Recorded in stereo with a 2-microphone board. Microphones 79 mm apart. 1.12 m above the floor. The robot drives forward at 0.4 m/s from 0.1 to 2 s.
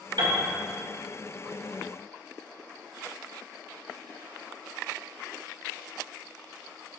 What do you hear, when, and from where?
0.2 s a piano: 70° right (ahead or behind), 1.8 m